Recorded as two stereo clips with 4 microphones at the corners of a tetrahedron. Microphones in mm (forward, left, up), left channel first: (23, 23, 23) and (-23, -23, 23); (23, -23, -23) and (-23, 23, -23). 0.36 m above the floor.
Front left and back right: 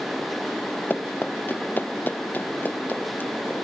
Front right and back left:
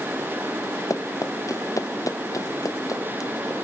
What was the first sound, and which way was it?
Running footsteps, 15° right.